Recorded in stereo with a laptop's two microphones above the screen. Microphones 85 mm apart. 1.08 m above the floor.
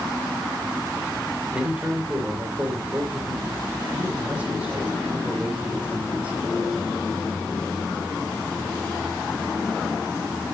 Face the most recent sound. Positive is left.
turn(degrees=-15)  # may be behind; listen again after turning